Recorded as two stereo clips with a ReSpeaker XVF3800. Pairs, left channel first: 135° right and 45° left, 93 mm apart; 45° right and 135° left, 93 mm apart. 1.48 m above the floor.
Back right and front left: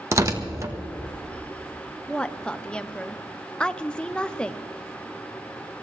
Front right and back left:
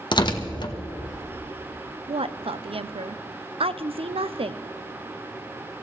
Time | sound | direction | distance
0.1 | tearing paper | 10° right | 1.1 m
2.1 | a woman speaking | 145° left | 0.6 m